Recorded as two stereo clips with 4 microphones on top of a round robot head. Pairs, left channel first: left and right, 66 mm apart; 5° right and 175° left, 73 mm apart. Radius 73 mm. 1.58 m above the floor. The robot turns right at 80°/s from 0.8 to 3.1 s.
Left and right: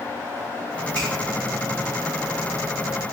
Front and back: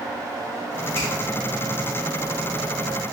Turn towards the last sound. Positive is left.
turn(degrees=105)